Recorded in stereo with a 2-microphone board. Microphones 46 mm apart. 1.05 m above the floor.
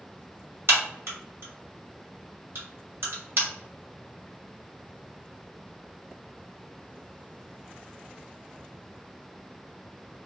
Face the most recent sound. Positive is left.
turn(degrees=-60)  # may be behind; listen again after turning